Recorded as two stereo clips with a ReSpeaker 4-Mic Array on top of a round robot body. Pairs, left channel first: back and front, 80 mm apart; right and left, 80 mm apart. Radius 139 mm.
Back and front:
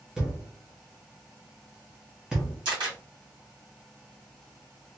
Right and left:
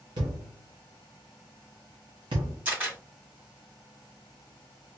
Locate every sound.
0.2 s a thud: 85° left, 0.9 m
2.6 s a camera shutter: 20° left, 1.7 m